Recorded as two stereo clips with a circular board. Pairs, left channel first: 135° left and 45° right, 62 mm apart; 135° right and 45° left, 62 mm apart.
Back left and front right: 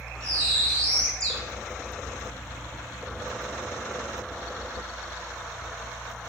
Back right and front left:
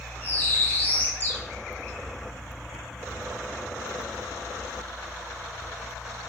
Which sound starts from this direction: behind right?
A bird, at 0.2 s.